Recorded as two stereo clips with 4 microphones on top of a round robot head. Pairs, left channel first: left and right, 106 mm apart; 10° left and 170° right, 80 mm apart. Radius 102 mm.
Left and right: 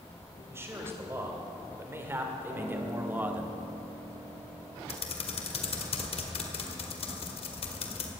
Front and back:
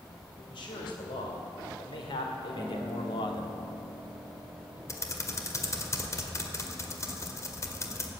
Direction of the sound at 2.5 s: 60° right.